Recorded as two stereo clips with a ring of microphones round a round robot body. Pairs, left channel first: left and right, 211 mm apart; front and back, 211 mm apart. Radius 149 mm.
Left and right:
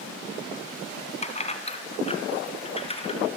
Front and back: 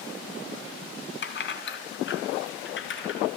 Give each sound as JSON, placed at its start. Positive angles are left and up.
{"t": 1.2, "sound": "keys jangling", "azimuth_deg": 30, "distance_m": 3.0}